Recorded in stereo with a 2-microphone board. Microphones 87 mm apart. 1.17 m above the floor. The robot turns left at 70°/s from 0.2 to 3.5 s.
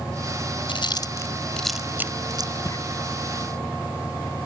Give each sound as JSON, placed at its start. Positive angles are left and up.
{"t": 0.7, "sound": "chewing", "side_deg": 70}
{"t": 2.6, "sound": "footsteps", "side_deg": 35}